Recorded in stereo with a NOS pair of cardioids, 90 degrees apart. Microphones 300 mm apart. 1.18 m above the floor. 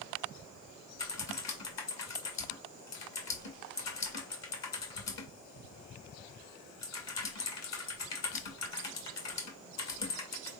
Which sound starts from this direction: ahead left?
Typing on a keyboard, at 1.0 s.